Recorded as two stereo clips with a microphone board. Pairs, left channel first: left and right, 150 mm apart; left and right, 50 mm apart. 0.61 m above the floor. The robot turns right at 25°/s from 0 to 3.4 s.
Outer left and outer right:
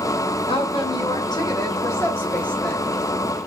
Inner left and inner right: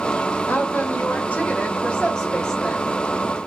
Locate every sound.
0.5 s a woman speaking: 115° left, 0.9 m; by 2.9 s 175° left, 0.9 m